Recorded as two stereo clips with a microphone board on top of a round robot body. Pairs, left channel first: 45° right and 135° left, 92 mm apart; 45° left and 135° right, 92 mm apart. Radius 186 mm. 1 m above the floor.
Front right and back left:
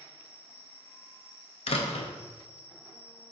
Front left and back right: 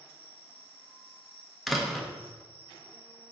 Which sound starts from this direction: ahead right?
A door slam, at 1.7 s.